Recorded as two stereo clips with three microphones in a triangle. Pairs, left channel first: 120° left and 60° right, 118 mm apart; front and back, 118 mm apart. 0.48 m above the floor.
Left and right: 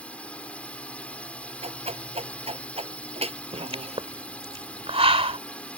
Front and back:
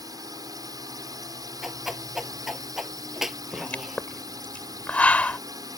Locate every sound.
0.0 s a drone: 170° right
1.6 s a whoosh: 95° right
3.5 s a pop: 75° right